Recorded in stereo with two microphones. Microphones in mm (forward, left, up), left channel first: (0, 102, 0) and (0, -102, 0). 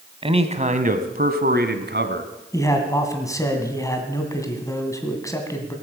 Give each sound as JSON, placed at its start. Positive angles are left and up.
{"t": 0.2, "sound": "a man speaking", "side_deg": -25, "distance_m": 1.3}
{"t": 2.5, "sound": "a man speaking", "side_deg": 15, "distance_m": 2.0}